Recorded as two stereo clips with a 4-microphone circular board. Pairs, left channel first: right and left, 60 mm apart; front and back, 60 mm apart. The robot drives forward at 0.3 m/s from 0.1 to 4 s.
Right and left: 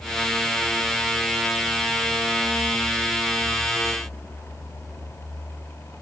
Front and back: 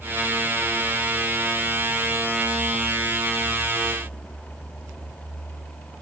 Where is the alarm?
No alarm in this recording.